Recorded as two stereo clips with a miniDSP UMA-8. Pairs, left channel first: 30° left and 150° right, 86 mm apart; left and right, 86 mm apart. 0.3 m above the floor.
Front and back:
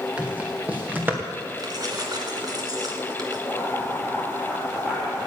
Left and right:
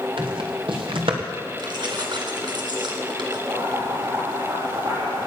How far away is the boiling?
About 7 m.